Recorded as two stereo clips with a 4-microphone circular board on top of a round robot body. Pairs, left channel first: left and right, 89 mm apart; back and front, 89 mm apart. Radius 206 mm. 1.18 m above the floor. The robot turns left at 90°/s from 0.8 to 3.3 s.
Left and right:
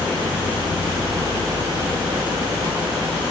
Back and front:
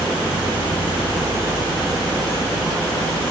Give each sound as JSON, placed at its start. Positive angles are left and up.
{"t": 0.0, "sound": "an insect", "azimuth_deg": 15, "distance_m": 5.5}